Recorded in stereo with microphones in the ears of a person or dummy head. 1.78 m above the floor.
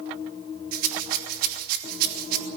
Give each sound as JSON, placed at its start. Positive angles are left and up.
{"t": 0.7, "sound": "a rattle", "side_deg": -50, "distance_m": 3.0}